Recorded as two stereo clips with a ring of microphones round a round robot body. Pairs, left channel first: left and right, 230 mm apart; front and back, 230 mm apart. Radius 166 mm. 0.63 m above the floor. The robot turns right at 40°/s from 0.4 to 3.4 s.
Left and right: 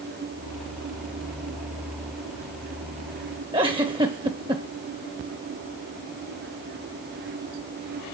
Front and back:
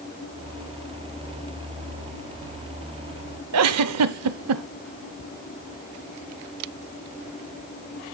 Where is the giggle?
165° right, 0.5 m.